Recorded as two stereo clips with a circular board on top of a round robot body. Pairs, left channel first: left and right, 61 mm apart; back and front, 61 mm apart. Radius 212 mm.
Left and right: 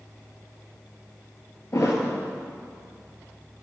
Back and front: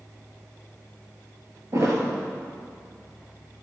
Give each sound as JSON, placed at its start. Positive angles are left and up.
{"t": 1.7, "sound": "a thud", "azimuth_deg": 45, "distance_m": 1.8}